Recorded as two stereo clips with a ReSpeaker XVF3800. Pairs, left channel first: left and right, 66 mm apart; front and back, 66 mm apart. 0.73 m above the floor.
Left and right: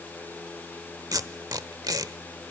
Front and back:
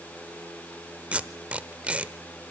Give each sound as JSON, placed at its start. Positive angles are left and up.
{"t": 1.1, "sound": "tape being pulled", "azimuth_deg": -110, "distance_m": 0.9}